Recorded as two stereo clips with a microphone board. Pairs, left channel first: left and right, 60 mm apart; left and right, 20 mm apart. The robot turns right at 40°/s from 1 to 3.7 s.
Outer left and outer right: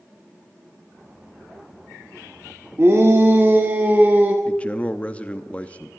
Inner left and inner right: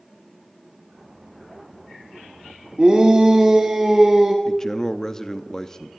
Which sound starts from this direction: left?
A man speaking, at 4.5 s.